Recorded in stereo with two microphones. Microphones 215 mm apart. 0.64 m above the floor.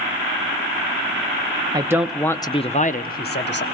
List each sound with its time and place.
1.7 s a man speaking: 20° right (ahead or behind), 0.6 m; by 3.6 s 55° left (ahead or behind), 1.0 m